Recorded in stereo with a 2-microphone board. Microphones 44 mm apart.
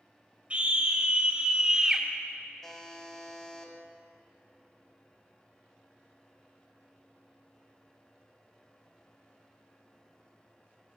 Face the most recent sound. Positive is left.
turn(degrees=10)  # may be behind; listen again after turning